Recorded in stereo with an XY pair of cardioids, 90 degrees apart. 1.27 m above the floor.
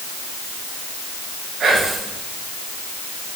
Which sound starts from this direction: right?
Whispering, at 1.6 s.